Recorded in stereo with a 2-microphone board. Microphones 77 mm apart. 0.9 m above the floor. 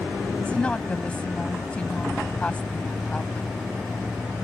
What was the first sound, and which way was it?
A woman speaking, 15° left (ahead or behind).